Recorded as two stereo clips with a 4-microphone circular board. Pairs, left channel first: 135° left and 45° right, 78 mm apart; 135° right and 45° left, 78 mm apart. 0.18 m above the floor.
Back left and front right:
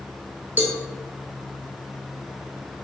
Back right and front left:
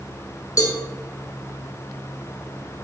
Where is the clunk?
I don't hear a clunk.